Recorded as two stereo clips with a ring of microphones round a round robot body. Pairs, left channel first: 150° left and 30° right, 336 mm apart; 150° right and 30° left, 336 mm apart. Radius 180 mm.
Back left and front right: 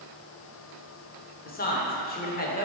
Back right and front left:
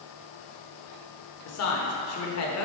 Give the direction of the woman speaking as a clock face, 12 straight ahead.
5 o'clock.